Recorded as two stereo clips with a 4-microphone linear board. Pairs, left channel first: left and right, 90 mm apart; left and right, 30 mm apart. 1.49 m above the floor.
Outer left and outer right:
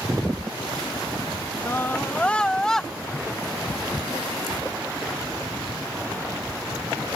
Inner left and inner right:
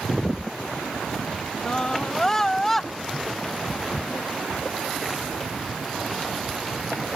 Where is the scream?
30° left (ahead or behind); by 2.9 s 5° left (ahead or behind).